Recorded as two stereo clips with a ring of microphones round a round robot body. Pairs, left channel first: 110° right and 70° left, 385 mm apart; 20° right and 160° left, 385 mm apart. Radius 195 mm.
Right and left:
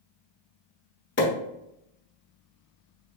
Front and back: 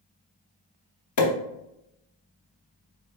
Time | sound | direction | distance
1.2 | a pop | 55° right | 1.8 m